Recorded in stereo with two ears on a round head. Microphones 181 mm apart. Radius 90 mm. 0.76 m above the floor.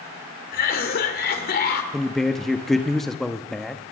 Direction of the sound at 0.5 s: 50° left (ahead or behind).